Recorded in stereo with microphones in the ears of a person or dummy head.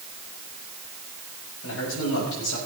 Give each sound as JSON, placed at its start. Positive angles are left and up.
{"t": 1.6, "sound": "a man speaking", "side_deg": 65, "distance_m": 5.0}